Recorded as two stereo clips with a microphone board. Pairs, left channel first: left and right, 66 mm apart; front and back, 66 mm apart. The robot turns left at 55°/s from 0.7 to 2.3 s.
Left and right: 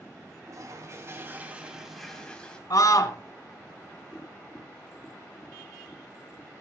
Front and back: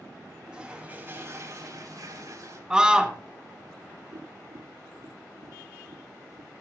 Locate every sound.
0.5 s a toilet flushing: 110° right, 2.5 m; by 2.6 s 165° left, 2.5 m
2.7 s a scream: 100° left, 2.5 m
4.1 s tapping: 170° left, 6.5 m